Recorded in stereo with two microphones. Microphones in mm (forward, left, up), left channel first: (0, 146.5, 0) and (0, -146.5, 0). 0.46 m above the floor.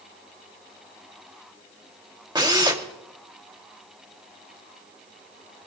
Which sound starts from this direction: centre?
A drill, at 2.4 s.